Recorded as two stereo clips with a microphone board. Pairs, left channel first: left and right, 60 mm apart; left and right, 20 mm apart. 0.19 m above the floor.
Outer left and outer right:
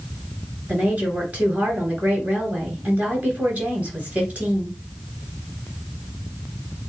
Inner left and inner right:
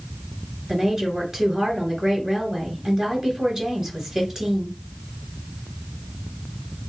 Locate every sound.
0.7 s a woman speaking: 20° right (ahead or behind), 3 m